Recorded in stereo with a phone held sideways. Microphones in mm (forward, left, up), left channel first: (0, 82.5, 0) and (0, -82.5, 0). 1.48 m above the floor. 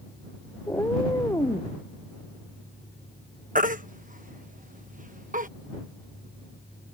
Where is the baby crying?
55° right (ahead or behind).